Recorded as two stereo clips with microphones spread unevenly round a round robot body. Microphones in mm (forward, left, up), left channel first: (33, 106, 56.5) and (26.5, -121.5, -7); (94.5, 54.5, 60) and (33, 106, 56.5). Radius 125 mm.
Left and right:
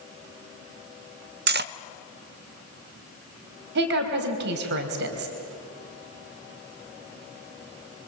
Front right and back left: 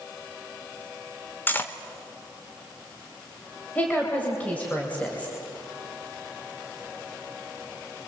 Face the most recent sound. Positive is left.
turn(degrees=-115)